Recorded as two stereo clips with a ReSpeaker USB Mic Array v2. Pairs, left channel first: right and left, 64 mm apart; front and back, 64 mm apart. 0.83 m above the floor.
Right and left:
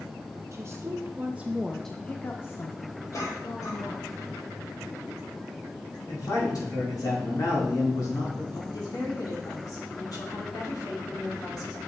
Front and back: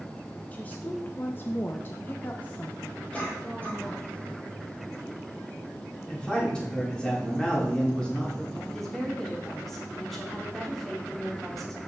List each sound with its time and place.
0.5 s a woman speaking: 65° left, 0.8 m; by 4.1 s 85° right, 1.3 m
3.1 s a cough: 65° right, 3 m
6.1 s a man speaking: 75° right, 2.5 m
8.7 s a woman speaking: 85° right, 1.9 m